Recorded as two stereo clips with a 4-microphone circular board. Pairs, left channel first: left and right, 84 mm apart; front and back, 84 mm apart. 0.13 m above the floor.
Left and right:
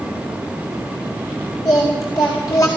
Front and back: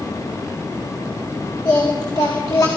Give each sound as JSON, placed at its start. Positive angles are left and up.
{"t": 1.6, "sound": "singing", "azimuth_deg": 40, "distance_m": 4.5}